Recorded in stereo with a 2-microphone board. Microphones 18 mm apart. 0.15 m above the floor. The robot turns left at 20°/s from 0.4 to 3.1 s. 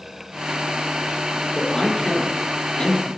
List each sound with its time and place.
1.6 s a man speaking: 30° left (ahead or behind), 5.5 m; by 3.1 s 55° left (ahead or behind), 5.5 m